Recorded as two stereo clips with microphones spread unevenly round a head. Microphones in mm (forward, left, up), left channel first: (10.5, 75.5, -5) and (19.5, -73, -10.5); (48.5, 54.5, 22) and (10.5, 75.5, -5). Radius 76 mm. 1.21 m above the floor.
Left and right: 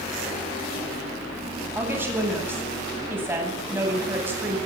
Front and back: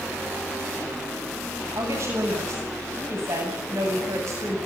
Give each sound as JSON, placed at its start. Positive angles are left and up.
{"t": 1.8, "sound": "a woman speaking", "azimuth_deg": -165, "distance_m": 8.5}